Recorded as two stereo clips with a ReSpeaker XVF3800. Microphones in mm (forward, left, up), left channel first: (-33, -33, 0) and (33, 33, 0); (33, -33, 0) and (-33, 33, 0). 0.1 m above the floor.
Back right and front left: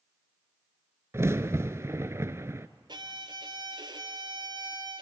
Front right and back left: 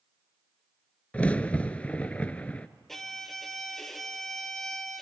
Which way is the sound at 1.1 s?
20° left.